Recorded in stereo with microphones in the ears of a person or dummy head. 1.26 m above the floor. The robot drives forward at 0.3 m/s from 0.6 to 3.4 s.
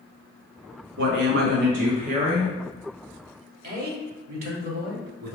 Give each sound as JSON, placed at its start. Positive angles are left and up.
{"t": 1.0, "sound": "a woman speaking", "side_deg": -60, "distance_m": 0.6}
{"t": 3.6, "sound": "a man speaking", "side_deg": -45, "distance_m": 0.8}